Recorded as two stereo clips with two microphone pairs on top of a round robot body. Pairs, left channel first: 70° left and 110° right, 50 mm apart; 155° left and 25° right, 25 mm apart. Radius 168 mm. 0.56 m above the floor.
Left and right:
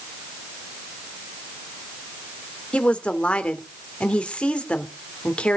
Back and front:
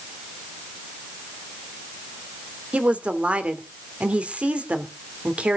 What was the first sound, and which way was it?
A woman speaking, straight ahead.